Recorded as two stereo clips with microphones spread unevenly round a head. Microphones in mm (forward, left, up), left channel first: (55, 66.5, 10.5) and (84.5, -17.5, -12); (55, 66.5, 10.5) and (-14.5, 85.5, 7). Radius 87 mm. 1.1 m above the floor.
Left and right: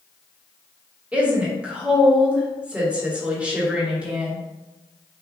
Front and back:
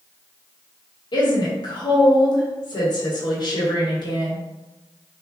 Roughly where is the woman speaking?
Ahead.